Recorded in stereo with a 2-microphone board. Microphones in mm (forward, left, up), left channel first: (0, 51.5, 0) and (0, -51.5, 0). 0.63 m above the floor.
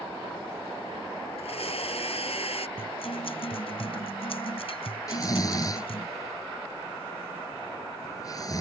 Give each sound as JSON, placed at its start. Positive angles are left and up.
{"t": 1.4, "sound": "a blender", "side_deg": 75}
{"t": 2.8, "sound": "a guitar", "side_deg": 65}
{"t": 5.1, "sound": "snoring", "side_deg": 35}